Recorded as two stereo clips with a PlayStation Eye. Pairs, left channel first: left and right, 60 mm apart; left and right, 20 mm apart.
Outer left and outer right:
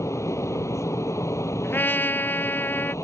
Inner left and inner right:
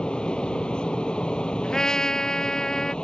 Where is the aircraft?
55° left (ahead or behind).